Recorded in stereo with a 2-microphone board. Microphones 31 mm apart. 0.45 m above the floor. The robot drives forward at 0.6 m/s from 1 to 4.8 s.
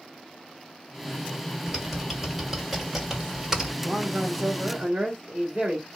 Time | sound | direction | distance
1.7 | typing on a keyboard | 10° right (ahead or behind) | 2.5 m
3.8 | a man speaking | 30° right (ahead or behind) | 1.4 m